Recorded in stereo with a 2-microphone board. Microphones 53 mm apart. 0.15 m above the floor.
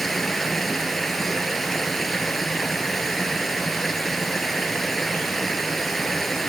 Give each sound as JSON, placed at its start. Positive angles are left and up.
{"t": 0.0, "sound": "running water", "side_deg": 5, "distance_m": 0.9}